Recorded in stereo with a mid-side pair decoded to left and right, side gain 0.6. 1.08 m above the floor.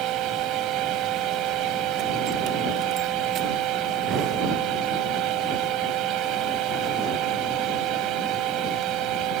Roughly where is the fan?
Ahead right.